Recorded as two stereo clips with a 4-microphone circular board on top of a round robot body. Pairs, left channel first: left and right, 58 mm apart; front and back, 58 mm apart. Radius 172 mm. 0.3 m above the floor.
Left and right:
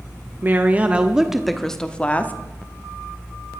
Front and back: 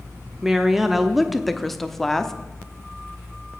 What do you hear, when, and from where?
0.4 s a woman speaking: 100° right, 1.1 m; by 2.3 s 75° left, 1.1 m